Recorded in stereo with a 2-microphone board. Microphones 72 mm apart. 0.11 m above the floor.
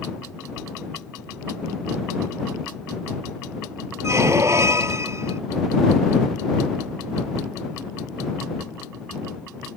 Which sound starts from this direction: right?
A squeak, at 4.0 s.